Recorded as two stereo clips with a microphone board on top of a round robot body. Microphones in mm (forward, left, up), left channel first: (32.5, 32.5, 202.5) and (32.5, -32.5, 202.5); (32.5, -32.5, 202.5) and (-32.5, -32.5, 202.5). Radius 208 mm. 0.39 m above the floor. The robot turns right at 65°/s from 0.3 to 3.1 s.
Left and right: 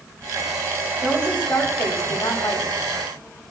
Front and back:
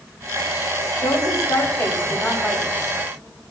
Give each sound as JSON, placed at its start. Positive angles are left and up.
{"t": 1.0, "sound": "a woman speaking", "azimuth_deg": -5, "distance_m": 4.0}